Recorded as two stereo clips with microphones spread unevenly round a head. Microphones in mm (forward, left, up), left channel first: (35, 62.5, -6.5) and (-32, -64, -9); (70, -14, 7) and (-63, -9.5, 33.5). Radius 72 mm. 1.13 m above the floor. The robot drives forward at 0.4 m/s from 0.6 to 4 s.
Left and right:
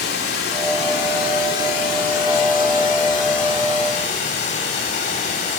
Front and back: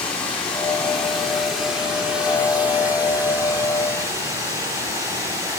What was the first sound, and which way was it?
Running water, 80° left.